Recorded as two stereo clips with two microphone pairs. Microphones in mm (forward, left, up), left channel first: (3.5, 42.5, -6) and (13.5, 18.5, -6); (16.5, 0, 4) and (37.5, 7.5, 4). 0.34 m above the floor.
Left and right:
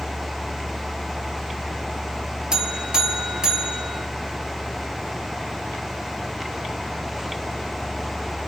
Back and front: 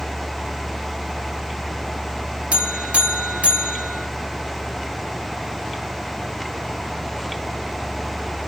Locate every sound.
2.5 s a buzzer: straight ahead, 1.1 m